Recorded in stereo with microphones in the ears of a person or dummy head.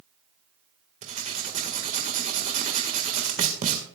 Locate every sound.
1.0 s writing: 40° right (ahead or behind), 1.8 m